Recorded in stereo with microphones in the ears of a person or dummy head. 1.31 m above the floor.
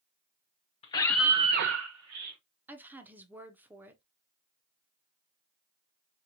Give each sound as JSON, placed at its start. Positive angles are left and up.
{"t": 0.8, "sound": "a scream", "side_deg": 30, "distance_m": 0.8}
{"t": 2.7, "sound": "a woman speaking", "side_deg": -5, "distance_m": 0.8}